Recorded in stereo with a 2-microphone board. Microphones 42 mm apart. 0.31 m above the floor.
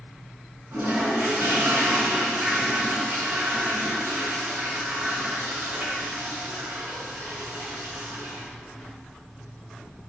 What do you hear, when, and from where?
0.7 s a toilet flushing: 65° right (ahead or behind), 2.5 m